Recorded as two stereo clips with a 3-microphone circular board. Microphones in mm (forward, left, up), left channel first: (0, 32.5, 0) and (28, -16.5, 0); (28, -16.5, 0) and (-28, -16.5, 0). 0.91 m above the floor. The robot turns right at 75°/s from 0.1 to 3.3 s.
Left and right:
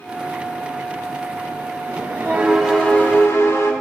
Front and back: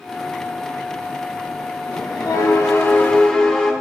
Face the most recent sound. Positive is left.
turn(degrees=80)